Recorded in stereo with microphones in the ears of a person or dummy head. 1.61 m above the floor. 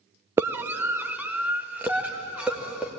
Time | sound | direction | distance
0.4 | a scream | 15° right (ahead or behind) | 0.6 m